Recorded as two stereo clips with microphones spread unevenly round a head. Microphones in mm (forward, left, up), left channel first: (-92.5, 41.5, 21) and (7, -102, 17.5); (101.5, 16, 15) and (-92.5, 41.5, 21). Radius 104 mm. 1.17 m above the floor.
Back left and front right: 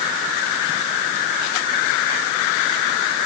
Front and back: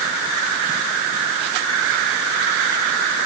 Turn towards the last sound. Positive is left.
No sound to turn to.